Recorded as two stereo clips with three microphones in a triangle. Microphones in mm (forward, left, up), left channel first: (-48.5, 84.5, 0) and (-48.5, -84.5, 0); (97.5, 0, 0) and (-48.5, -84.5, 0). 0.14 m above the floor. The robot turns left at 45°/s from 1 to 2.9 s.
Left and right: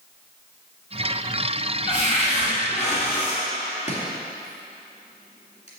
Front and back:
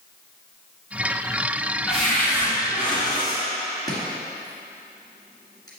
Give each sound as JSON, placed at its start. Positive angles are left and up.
{"t": 1.9, "sound": "a cupboard door", "azimuth_deg": 120, "distance_m": 2.0}
{"t": 3.9, "sound": "chopping", "azimuth_deg": 85, "distance_m": 1.7}